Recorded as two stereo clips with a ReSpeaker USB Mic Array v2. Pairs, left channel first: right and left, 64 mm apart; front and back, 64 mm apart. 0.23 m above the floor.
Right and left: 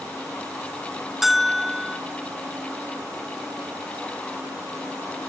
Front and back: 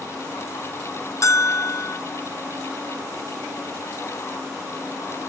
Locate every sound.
1.2 s a bell: 5° left, 0.5 m